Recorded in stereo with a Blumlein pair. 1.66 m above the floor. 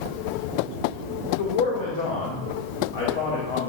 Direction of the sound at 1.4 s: 55° left.